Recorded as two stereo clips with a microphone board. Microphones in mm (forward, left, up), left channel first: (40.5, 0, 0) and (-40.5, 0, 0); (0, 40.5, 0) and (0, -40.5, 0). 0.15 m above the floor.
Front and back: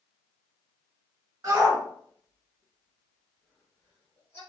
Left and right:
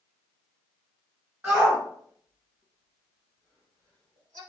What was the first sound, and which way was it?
A shout, 145° right.